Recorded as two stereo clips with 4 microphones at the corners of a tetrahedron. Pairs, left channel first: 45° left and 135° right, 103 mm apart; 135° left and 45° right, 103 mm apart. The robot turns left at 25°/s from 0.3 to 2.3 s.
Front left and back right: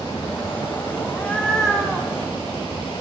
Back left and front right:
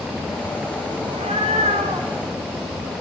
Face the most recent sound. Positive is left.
turn(degrees=-60)